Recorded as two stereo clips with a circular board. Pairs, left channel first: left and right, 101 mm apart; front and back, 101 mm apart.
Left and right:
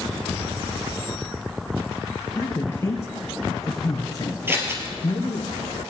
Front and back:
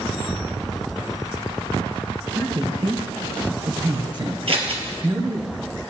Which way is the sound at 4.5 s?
155° right.